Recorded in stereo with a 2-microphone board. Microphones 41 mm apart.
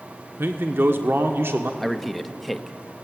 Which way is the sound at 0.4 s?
65° right (ahead or behind).